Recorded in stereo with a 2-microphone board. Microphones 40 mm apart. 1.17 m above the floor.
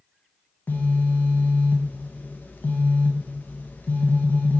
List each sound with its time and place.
0.7 s a phone buzzing: 50° left (ahead or behind), 0.5 m